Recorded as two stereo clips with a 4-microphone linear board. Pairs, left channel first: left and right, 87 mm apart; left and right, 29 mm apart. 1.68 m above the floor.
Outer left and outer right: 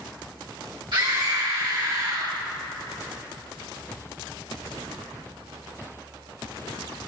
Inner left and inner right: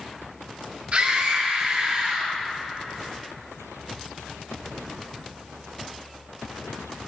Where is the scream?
60° right (ahead or behind), 1.2 m; by 2.3 s 70° right (ahead or behind), 2.5 m.